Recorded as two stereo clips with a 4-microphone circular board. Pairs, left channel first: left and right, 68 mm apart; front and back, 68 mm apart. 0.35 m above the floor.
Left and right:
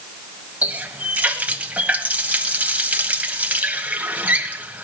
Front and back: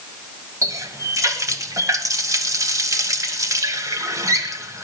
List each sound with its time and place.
0.6 s a running tap: 155° right, 1.4 m